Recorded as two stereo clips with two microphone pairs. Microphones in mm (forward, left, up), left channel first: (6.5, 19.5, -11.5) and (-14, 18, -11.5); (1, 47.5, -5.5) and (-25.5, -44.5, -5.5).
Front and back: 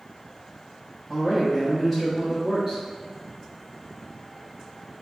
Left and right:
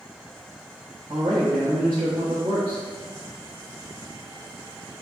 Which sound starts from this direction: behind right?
A man speaking, at 1.1 s.